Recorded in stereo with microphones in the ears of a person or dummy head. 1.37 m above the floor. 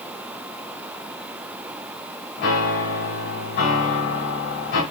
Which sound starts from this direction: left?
A piano, at 2.4 s.